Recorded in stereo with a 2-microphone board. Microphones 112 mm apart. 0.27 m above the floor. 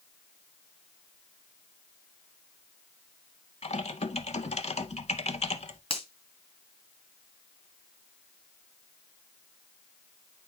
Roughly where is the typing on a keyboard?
Left.